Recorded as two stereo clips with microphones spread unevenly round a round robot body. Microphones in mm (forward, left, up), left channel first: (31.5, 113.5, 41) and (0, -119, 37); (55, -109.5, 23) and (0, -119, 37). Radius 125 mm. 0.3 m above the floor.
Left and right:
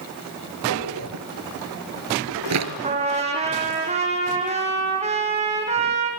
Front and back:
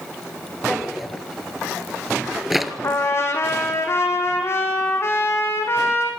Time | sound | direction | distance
0.7 | a drawer | 85° right | 2 m
2.8 | a trumpet | 35° right | 5 m